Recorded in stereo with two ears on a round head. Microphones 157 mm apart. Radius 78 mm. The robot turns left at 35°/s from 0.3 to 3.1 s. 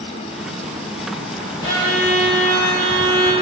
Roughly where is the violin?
Left.